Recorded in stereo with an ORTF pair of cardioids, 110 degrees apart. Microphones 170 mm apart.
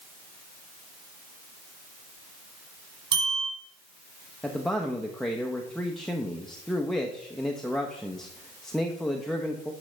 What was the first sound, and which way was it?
A bell, 40° right.